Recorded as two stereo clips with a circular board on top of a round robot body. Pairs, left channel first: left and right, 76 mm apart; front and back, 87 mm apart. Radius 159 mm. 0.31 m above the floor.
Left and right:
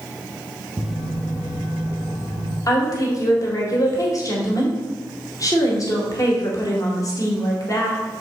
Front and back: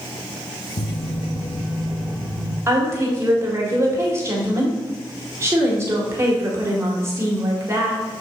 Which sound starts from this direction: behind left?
A woman speaking, at 2.7 s.